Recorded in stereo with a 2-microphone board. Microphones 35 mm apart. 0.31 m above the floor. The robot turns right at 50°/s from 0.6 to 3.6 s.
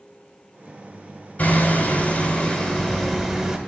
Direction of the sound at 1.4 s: 80° left.